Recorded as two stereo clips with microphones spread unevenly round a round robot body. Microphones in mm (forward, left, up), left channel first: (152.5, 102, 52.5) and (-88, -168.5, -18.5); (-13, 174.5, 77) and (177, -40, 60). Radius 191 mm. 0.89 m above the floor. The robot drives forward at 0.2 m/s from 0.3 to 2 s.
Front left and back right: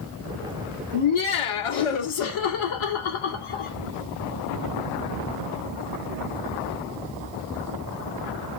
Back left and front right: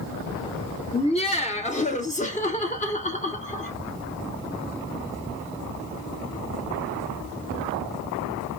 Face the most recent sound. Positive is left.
turn(degrees=65)